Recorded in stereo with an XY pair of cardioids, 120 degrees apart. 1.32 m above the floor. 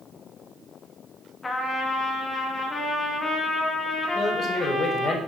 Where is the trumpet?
25° left, 2.5 m.